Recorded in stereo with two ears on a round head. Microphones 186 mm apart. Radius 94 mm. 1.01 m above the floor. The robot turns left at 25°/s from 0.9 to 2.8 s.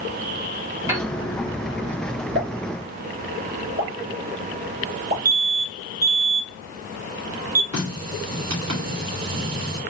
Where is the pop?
55° right (ahead or behind), 1.6 m; by 5.2 s 45° right (ahead or behind), 1.6 m.